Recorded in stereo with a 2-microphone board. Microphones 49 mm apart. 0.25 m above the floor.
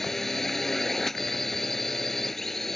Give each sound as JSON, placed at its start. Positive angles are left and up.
{"t": 0.0, "sound": "a drone", "side_deg": 5}